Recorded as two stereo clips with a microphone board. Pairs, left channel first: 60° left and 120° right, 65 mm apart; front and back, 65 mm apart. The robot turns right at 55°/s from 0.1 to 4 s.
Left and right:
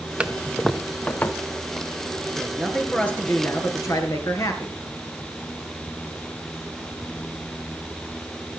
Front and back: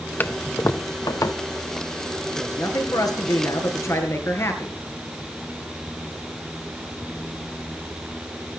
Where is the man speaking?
45° right, 3.5 m; by 4.8 s 45° left, 3.5 m.